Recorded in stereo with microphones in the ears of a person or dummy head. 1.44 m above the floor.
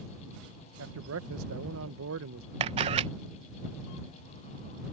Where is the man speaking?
75° right (ahead or behind).